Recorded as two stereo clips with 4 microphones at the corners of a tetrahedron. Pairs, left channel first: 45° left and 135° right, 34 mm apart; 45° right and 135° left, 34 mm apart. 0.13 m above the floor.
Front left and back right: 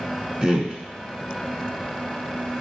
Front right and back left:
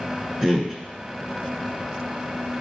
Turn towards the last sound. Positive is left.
turn(degrees=-165)